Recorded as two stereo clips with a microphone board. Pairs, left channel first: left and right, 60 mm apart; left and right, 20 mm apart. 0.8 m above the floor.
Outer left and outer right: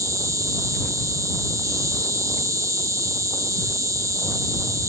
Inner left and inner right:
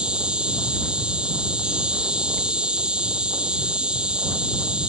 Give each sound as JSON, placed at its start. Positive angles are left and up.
{"t": 0.0, "sound": "an insect", "side_deg": -65}